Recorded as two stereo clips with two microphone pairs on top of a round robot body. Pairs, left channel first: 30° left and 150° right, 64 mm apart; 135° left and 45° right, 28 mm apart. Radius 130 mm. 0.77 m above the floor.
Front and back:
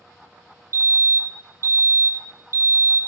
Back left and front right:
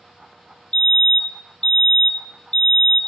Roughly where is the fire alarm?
Behind.